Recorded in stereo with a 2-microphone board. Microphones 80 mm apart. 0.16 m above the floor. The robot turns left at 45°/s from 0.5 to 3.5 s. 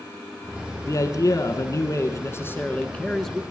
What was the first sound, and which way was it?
A man speaking, 115° left.